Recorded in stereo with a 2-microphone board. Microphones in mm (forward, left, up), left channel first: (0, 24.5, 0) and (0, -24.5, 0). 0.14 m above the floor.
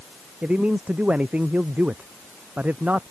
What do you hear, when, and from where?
0.4 s a man speaking: 25° right (ahead or behind); by 3.0 s 30° right (ahead or behind)